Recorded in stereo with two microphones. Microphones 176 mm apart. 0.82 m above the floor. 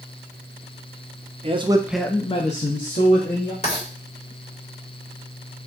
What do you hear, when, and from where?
1.4 s a man speaking: 35° right (ahead or behind), 0.7 m; by 3.5 s 55° left (ahead or behind), 1.6 m
3.6 s writing: 35° left (ahead or behind), 2 m